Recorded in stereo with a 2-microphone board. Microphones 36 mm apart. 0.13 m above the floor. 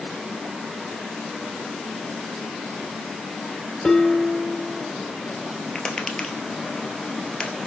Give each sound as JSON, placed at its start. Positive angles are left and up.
{"t": 3.8, "sound": "dishes clattering", "side_deg": 20, "distance_m": 1.0}
{"t": 5.8, "sound": "tapping", "side_deg": 25, "distance_m": 1.5}